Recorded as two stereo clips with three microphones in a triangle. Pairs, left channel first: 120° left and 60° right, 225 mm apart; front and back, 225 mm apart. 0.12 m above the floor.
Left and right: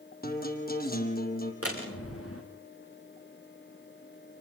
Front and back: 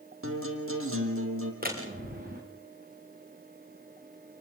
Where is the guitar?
165° left, 4 m.